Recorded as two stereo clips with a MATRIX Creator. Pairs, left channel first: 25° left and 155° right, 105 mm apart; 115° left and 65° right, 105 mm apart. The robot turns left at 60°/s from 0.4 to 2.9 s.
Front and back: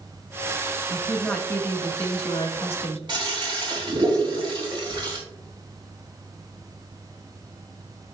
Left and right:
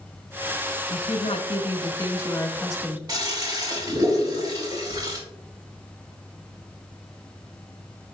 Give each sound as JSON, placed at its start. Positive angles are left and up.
{"t": 0.9, "sound": "a woman speaking", "azimuth_deg": 130, "distance_m": 1.4}
{"t": 3.1, "sound": "a toilet flushing", "azimuth_deg": -115, "distance_m": 2.0}